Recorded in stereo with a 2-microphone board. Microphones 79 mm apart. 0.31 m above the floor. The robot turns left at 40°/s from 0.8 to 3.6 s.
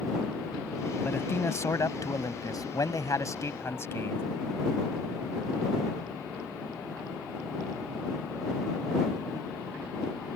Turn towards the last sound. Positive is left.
turn(degrees=45)